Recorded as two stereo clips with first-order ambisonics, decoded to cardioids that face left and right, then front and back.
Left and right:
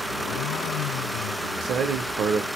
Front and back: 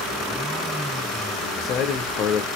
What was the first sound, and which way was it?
A man speaking, 40° right.